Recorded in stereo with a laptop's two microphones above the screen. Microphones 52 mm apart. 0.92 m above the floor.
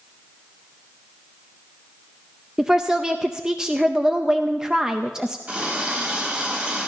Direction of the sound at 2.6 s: 15° right (ahead or behind).